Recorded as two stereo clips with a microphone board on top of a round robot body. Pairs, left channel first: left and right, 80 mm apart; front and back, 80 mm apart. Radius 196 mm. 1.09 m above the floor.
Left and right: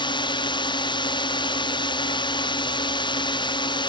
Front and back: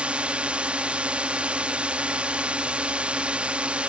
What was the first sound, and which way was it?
A drone, 105° left.